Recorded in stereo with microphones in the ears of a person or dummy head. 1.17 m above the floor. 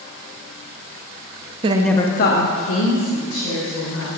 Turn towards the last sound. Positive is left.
turn(degrees=80)